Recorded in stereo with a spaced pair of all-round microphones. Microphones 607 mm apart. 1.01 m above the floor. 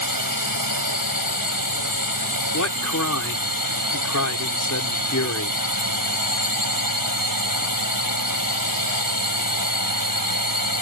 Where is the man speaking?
30° left (ahead or behind).